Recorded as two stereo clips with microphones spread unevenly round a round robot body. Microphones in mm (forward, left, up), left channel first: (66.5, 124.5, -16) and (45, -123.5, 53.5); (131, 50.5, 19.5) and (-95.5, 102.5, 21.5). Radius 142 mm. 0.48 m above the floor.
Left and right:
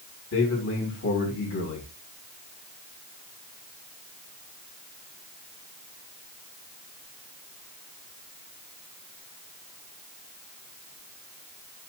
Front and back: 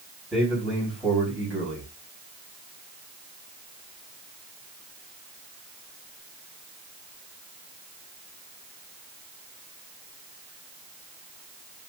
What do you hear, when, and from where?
0.3 s a man speaking: 80° left, 4 m